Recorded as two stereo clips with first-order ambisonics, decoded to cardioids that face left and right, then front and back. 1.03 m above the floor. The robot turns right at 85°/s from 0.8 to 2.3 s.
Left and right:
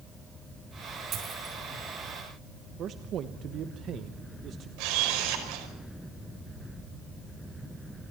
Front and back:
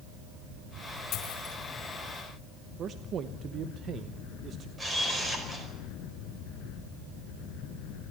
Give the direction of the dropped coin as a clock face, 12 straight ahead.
1 o'clock.